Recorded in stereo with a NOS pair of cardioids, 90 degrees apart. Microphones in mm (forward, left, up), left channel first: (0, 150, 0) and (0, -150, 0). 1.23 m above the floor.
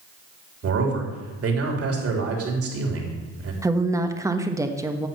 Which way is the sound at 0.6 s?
50° right.